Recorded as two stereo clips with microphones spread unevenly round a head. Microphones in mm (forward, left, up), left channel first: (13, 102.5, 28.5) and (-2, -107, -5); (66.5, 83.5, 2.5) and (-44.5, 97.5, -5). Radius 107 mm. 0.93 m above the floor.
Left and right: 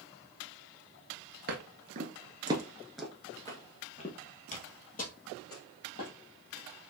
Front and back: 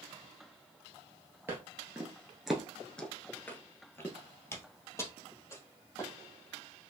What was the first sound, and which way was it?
Footsteps, 120° right.